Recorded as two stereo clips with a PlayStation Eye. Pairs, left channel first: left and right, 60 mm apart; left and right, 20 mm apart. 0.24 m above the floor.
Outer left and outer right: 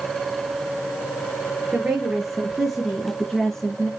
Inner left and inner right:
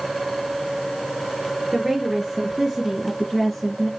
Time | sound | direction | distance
1.7 | a woman speaking | 10° right (ahead or behind) | 3.5 m